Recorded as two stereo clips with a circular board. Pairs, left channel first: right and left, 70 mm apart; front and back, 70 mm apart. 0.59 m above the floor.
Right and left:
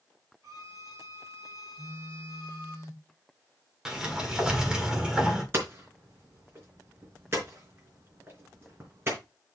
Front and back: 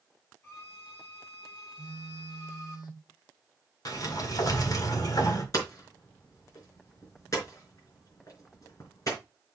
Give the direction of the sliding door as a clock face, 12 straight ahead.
12 o'clock.